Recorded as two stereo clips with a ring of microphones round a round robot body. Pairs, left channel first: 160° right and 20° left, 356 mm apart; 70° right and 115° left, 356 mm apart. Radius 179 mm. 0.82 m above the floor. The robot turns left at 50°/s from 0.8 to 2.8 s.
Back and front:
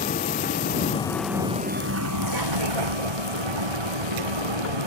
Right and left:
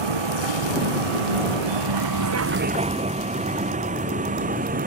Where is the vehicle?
130° left; by 4.9 s 45° left.